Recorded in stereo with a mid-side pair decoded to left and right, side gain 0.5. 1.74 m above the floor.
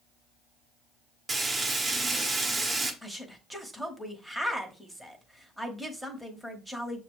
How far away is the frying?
About 1.2 m.